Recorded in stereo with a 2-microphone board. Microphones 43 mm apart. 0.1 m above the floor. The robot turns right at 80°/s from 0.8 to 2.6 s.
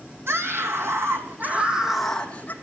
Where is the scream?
95° right, 4 m; by 2.5 s 45° left, 4 m.